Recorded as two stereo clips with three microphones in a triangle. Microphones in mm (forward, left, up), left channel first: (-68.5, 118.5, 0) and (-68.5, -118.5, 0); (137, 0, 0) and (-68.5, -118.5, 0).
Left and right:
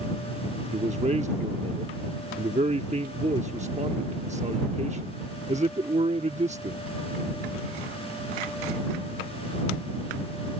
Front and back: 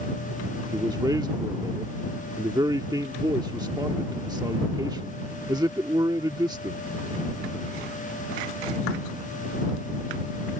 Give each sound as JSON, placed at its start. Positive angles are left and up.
{"t": 0.7, "sound": "a man speaking", "azimuth_deg": -95}